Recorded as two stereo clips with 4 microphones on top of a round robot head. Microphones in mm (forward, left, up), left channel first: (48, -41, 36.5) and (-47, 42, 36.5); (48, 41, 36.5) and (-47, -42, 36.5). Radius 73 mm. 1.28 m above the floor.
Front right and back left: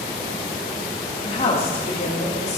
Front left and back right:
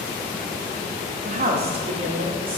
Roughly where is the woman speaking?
Right.